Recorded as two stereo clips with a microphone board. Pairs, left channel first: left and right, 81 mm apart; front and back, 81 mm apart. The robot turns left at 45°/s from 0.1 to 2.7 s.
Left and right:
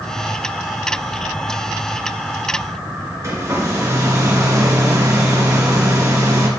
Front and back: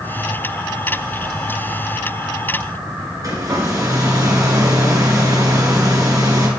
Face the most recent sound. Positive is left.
turn(degrees=-140)